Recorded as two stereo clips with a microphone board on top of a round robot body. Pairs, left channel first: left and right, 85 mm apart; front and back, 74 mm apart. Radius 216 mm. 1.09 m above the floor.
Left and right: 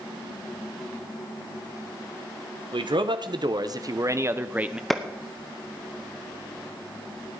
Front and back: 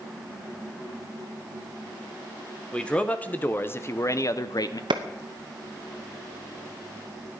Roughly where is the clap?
Behind.